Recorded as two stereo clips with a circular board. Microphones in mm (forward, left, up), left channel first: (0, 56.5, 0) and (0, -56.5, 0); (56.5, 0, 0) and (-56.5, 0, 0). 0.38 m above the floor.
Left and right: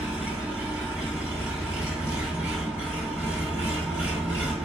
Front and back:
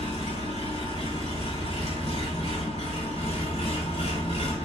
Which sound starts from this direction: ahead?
An engine running, at 0.0 s.